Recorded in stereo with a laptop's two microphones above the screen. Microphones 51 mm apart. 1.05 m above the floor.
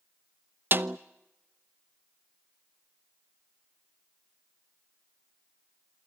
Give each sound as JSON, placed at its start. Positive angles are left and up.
{"t": 0.7, "sound": "a snare drum", "side_deg": -45, "distance_m": 0.6}